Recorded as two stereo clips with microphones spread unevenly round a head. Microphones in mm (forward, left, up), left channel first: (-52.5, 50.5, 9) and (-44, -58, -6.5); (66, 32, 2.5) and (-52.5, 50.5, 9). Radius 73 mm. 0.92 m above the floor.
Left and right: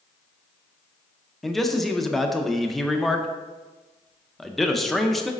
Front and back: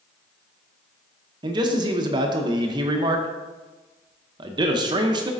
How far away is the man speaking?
About 0.6 m.